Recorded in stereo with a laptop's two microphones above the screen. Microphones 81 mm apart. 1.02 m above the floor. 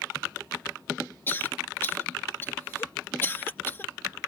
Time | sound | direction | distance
1.3 | a cough | 25° left (ahead or behind) | ?